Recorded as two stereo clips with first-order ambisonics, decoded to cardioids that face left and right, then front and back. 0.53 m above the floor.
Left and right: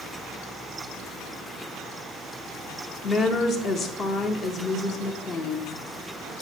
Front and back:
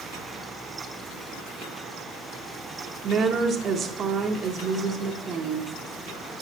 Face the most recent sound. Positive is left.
turn(degrees=135)